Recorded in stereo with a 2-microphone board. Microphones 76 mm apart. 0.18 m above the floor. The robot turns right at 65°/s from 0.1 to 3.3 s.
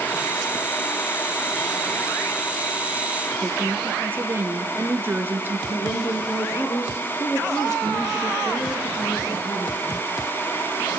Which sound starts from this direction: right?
A woman speaking, at 3.4 s.